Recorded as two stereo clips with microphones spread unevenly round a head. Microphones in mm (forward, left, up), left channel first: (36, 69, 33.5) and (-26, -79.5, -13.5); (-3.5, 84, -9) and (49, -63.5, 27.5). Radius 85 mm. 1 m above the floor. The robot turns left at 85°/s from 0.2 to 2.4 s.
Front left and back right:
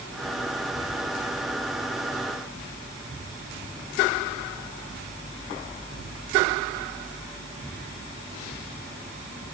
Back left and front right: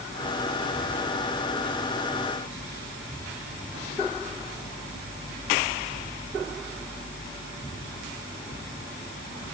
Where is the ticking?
I don't hear ticking.